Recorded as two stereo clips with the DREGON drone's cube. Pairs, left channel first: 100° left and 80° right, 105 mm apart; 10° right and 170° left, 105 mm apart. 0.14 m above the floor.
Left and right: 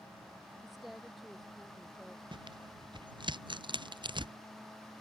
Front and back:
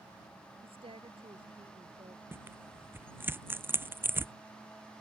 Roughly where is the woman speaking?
Behind.